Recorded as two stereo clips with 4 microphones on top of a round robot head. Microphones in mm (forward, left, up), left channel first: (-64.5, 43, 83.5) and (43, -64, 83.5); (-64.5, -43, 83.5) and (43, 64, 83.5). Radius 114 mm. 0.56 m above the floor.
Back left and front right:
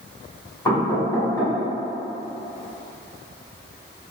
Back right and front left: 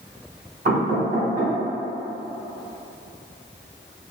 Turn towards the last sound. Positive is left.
turn(degrees=70)